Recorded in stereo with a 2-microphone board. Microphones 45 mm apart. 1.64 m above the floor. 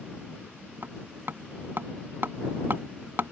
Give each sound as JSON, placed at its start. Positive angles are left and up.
{"t": 0.8, "sound": "hammering", "side_deg": -50}